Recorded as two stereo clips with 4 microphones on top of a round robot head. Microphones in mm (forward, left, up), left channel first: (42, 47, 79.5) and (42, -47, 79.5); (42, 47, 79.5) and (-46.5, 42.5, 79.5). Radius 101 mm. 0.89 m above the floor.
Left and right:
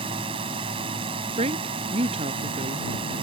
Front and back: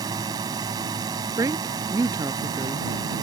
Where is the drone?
125° right.